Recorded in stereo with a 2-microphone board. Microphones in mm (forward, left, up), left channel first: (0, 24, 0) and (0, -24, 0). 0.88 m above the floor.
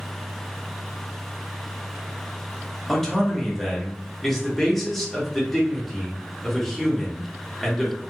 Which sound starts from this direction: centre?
A man speaking, at 2.9 s.